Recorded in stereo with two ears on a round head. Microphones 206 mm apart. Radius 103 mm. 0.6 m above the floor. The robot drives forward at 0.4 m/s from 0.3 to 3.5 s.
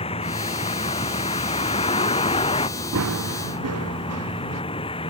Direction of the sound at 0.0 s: 25° left (ahead or behind).